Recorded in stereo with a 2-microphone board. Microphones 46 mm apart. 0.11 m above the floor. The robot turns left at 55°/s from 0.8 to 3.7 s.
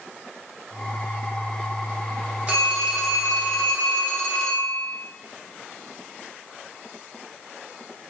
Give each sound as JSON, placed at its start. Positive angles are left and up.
{"t": 2.5, "sound": "a phone ringing", "azimuth_deg": -140, "distance_m": 1.0}